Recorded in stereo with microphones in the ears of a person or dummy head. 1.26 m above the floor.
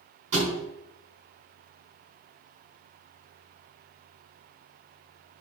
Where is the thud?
40° right (ahead or behind), 5 m.